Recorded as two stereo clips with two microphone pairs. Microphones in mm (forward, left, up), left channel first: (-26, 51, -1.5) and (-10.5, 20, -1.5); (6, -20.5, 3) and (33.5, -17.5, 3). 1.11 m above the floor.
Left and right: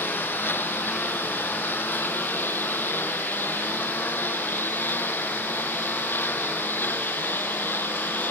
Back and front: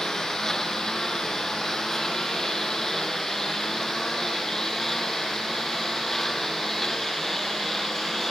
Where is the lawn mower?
115° left; by 8.3 s 105° left.